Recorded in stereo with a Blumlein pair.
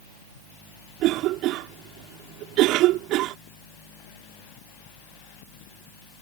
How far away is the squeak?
I don't hear a squeak.